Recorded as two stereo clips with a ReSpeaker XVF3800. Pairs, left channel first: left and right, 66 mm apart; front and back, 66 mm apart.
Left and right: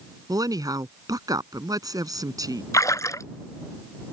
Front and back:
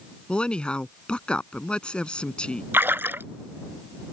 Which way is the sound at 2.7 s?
125° left.